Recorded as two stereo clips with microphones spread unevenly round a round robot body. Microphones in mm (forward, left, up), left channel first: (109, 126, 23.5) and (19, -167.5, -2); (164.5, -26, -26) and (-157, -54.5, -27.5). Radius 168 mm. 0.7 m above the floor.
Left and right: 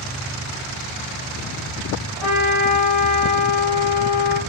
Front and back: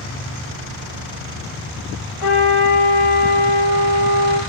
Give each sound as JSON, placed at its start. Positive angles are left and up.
{"t": 2.2, "sound": "a trumpet", "azimuth_deg": -15, "distance_m": 0.9}